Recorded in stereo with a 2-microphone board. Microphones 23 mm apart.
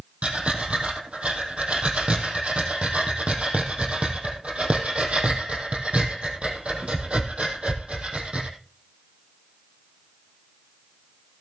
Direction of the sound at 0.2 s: 70° right (ahead or behind).